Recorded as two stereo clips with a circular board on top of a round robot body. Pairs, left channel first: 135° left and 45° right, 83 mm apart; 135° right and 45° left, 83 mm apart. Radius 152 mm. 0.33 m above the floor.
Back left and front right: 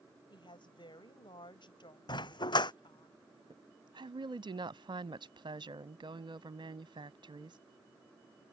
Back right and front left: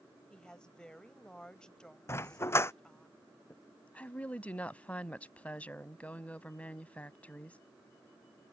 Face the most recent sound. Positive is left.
turn(degrees=-60)